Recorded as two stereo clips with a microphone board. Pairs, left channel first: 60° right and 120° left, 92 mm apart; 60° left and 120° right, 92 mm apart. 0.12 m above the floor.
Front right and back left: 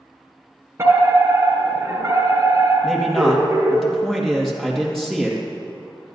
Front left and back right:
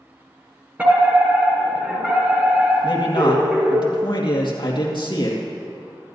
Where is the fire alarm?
170° left, 4 m.